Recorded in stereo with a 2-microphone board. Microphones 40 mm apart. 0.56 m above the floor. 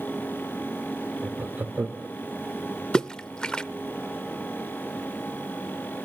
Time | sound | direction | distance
1.2 | laughter | 45° right (ahead or behind) | 1.6 m
2.9 | a splash | 25° left (ahead or behind) | 0.7 m